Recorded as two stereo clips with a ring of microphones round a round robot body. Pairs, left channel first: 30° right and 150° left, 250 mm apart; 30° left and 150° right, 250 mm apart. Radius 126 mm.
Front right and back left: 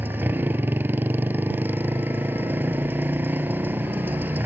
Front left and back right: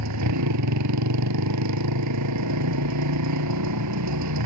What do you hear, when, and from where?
0.0 s a motorcycle: 130° right